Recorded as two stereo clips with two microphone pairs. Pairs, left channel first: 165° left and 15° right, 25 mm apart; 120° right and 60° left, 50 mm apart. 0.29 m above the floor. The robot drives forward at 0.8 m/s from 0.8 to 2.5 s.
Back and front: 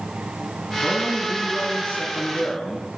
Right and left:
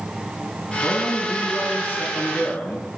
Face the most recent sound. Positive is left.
turn(degrees=-170)